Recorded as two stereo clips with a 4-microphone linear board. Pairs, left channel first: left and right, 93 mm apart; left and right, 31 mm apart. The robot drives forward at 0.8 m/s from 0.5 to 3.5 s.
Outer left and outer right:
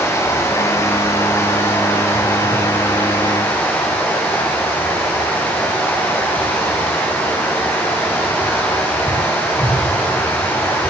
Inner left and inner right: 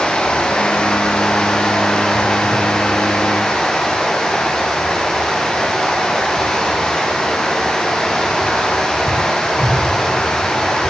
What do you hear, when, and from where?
0.0 s running water: 30° left (ahead or behind), 8.5 m; by 10.9 s 20° left (ahead or behind), 10.5 m